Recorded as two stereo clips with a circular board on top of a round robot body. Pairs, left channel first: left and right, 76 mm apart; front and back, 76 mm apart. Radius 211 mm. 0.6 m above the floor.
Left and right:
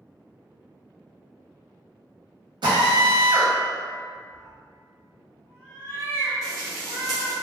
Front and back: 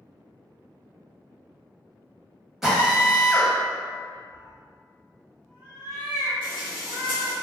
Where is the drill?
95° right, 1.1 m.